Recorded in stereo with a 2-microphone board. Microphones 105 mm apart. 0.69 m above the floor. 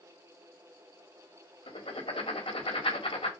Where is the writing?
60° left (ahead or behind), 2 m.